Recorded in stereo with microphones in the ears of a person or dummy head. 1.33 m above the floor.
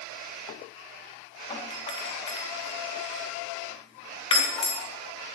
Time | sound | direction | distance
1.5 | a doorbell | 20° left (ahead or behind) | 4 m